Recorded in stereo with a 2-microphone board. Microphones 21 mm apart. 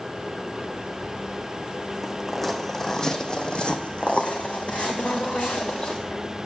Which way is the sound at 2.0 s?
5° right (ahead or behind).